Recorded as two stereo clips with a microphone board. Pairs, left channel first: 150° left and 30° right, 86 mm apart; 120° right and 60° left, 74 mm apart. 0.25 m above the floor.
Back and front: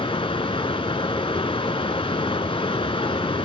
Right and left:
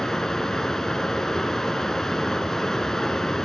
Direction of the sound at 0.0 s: 155° left.